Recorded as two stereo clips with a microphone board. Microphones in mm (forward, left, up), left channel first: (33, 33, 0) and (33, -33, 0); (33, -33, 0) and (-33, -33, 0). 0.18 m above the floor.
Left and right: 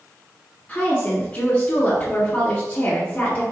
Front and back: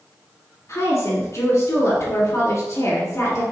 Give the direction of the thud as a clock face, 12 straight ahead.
No thud in this recording.